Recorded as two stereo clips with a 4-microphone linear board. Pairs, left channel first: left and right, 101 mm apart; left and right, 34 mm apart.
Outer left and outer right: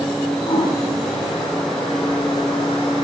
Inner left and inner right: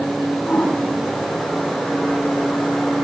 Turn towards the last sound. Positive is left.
turn(degrees=45)  # may be behind; listen again after turning